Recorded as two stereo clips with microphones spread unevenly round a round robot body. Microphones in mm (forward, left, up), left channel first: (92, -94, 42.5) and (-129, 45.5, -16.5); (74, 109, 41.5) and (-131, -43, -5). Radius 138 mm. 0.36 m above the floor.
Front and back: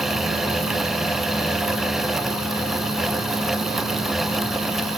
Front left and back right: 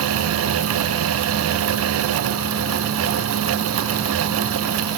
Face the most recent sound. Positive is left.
No sound to turn to.